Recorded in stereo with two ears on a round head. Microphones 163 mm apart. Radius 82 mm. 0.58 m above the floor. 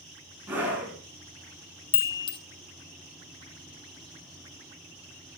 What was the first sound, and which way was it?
A scream, 10° right (ahead or behind).